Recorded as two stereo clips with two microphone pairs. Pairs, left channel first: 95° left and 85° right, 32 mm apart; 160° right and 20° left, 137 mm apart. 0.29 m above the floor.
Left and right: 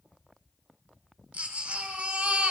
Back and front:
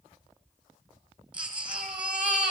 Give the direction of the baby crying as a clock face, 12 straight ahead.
2 o'clock.